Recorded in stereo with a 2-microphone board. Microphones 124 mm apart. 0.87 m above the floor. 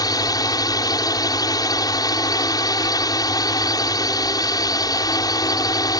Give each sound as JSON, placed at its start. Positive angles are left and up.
{"t": 0.0, "sound": "a drone", "side_deg": 30}